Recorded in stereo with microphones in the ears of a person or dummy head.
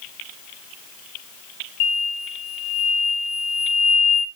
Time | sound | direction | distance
1.8 | an explosion | 50° left (ahead or behind) | 0.8 m